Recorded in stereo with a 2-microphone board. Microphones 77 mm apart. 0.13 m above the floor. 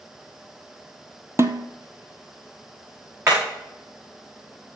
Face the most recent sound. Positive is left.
turn(degrees=-40)  # may be behind; listen again after turning